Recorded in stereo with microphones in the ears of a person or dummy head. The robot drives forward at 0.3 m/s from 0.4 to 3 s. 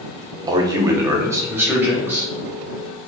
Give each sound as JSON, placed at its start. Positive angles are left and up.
{"t": 0.5, "sound": "a man speaking", "side_deg": -20, "distance_m": 0.5}